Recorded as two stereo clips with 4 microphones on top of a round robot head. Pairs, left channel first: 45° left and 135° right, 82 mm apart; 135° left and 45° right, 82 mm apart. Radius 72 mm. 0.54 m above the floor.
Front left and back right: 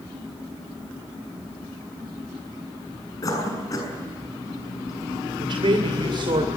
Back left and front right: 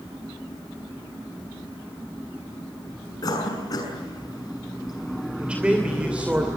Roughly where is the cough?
Left.